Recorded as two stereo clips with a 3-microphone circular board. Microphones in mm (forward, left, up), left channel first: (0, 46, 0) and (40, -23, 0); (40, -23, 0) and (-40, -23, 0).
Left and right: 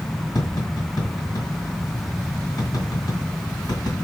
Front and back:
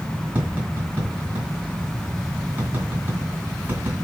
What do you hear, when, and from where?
0.3 s tapping: 120° left, 2.0 m